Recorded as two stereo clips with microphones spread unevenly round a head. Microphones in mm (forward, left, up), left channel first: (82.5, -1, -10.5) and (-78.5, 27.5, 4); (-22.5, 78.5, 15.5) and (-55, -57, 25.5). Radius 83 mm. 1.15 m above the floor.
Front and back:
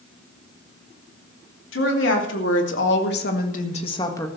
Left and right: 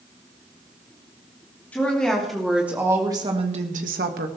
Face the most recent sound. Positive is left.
turn(degrees=-85)